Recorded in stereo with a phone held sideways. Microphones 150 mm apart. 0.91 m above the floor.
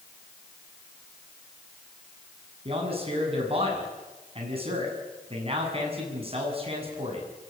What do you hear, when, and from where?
2.6 s a man speaking: 40° right (ahead or behind), 8 m